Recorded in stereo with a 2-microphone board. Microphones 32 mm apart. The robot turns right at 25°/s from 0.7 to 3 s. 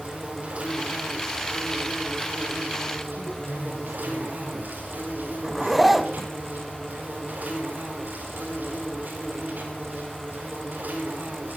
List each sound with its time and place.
0.0 s an insect: 130° right, 4.5 m; by 11.6 s 75° right, 4.5 m
3.2 s a man speaking: 15° left (ahead or behind), 9.5 m
5.4 s a zipper: 5° right (ahead or behind), 0.8 m